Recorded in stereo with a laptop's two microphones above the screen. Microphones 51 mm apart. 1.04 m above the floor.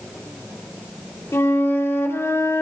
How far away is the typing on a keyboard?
I don't hear typing on a keyboard.